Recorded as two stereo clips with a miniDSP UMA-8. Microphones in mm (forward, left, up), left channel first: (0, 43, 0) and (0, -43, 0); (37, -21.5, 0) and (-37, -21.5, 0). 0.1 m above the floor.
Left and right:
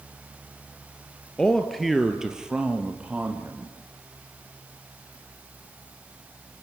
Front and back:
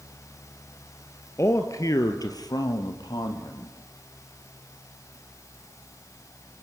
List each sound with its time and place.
1.4 s a man speaking: 15° left, 1.5 m; by 3.8 s 20° right, 3.5 m